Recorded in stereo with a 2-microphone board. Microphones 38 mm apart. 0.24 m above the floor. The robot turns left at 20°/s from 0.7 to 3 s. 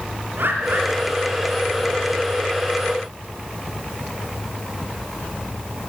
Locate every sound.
0.4 s a bird: 75° right (ahead or behind), 5 m